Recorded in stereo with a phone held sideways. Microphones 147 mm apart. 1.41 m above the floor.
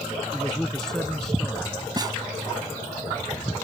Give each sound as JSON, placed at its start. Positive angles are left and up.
{"t": 0.3, "sound": "a man speaking", "side_deg": 5}
{"t": 2.0, "sound": "a snare drum", "side_deg": -30}